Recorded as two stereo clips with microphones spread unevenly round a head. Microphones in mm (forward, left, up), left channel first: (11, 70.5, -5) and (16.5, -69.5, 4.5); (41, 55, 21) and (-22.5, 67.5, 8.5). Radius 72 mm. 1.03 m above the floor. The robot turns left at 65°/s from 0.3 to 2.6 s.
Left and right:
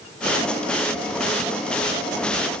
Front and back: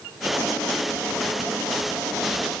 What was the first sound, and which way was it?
Only background noise.